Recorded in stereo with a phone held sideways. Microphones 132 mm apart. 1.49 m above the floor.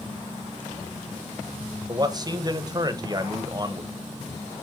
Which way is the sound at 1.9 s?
30° right (ahead or behind).